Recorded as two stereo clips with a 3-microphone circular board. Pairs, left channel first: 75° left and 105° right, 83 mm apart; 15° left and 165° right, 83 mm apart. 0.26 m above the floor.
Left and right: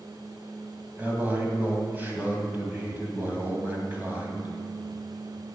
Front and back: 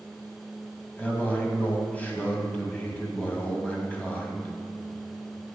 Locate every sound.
1.0 s a man speaking: 50° right, 1.8 m